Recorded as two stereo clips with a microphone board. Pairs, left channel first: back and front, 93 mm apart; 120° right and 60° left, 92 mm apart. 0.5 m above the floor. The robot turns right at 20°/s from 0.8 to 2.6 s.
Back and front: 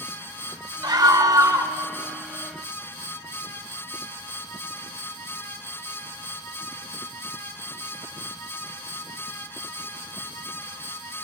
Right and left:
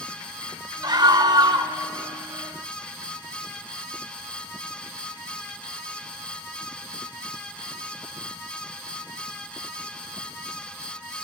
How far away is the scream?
About 1.5 m.